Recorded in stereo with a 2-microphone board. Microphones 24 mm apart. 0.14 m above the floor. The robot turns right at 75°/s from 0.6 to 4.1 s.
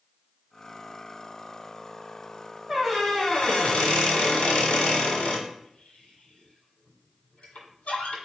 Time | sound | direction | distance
2.7 | a squeak | 5° right | 1.2 m